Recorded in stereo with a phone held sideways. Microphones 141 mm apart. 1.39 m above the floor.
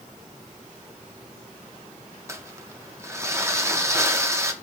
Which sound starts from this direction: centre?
Crumpling, at 2.3 s.